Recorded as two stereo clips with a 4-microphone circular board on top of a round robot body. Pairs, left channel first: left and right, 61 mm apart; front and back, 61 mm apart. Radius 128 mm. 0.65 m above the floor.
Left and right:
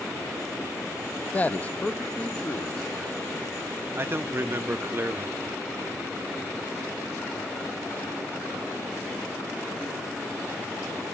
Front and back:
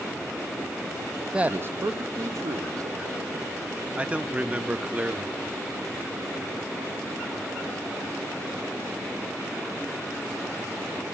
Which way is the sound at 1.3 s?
115° left.